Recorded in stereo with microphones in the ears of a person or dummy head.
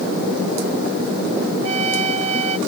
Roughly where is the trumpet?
Right.